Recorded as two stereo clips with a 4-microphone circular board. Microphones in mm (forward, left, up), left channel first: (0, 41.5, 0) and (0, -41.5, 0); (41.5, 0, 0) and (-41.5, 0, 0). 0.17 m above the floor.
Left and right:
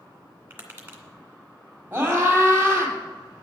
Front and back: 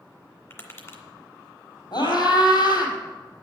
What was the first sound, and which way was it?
Tapping, 40° right.